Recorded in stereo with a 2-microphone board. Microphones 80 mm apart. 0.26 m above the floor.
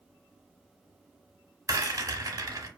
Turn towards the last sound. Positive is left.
turn(degrees=-45)  # may be behind; listen again after turning